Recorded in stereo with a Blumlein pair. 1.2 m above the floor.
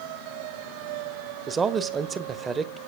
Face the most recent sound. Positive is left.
turn(degrees=-20)